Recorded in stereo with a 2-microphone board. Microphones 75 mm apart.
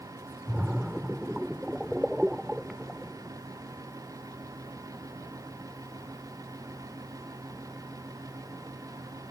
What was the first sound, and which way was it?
A splash, 10° right (ahead or behind).